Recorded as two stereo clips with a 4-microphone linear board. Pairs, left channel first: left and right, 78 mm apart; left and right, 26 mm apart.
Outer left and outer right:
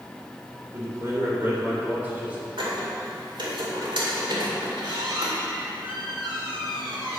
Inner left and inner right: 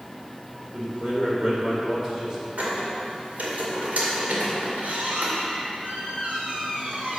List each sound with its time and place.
0.7 s a man speaking: 35° right (ahead or behind), 3 m; by 2.5 s 15° right (ahead or behind), 3 m
2.6 s a squeak: 80° right, 2 m